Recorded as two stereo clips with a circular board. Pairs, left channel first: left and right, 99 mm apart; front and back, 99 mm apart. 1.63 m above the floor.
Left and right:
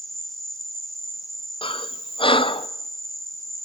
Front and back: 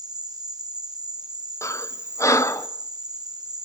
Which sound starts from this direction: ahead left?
Breathing, at 1.6 s.